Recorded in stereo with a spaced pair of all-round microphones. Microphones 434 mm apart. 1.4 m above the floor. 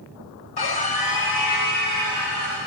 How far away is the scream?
About 0.9 m.